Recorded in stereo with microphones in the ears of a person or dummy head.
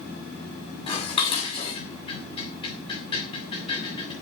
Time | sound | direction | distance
0.9 | dishes clattering | 30° left (ahead or behind) | 7.5 m